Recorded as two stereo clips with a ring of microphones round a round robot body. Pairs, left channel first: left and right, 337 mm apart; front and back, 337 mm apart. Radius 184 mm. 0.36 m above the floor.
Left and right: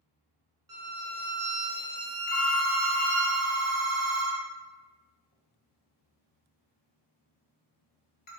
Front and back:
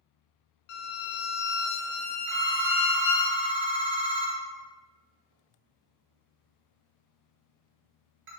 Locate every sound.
0.7 s a violin: 10° right, 0.6 m
2.3 s a phone ringing: 140° left, 1.1 m